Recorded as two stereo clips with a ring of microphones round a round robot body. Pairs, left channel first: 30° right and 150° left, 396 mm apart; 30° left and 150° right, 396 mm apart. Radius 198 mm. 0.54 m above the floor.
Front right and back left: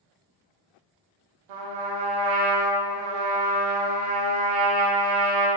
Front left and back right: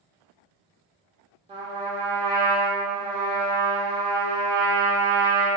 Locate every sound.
1.5 s a trumpet: 135° left, 0.6 m